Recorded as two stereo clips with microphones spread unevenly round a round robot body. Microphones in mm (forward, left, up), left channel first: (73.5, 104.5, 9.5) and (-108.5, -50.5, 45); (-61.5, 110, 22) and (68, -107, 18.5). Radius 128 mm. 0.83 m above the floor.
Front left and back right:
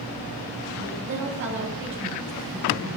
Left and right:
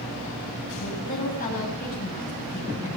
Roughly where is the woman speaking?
Behind.